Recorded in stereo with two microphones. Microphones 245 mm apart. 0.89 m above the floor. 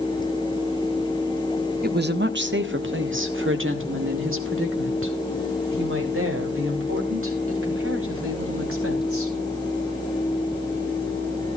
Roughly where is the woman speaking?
Right.